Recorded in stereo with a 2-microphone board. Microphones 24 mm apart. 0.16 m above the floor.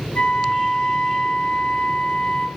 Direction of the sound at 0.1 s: 55° left (ahead or behind).